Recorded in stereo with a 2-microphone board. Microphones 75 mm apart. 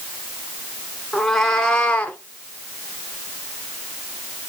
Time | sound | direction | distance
1.1 | a cat meowing | centre (ahead or behind) | 1.5 m